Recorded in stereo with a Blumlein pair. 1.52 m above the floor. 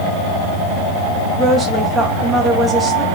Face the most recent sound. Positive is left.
turn(degrees=-10)